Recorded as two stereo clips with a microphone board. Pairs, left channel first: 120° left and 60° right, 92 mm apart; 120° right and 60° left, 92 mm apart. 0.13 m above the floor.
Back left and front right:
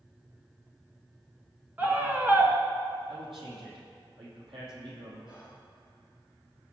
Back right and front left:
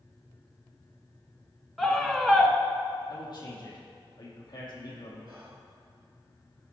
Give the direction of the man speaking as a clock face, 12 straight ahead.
3 o'clock.